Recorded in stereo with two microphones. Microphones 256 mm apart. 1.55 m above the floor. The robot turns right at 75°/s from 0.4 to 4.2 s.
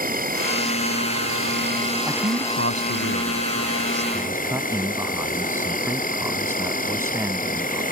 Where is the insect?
140° right; by 7.9 s 145° left.